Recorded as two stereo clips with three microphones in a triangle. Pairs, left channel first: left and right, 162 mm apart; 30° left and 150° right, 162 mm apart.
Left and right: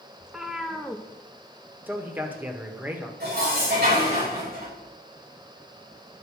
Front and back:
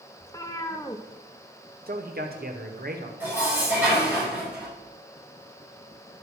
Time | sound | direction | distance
0.2 | a cat meowing | 10° right | 0.8 m
1.9 | a man speaking | 170° right | 1.5 m
3.2 | dishes clattering | 70° right | 5.5 m